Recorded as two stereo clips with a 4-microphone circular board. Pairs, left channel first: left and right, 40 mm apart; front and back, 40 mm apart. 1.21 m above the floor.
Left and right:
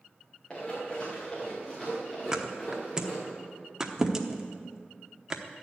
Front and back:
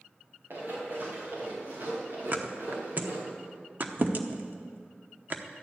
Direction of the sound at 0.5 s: 155° left.